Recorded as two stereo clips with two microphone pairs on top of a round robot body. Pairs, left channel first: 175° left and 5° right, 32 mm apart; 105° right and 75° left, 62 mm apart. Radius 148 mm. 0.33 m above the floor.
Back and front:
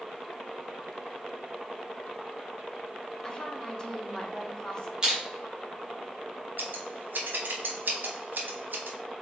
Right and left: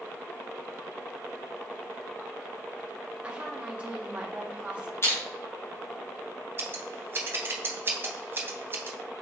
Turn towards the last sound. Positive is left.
turn(degrees=20)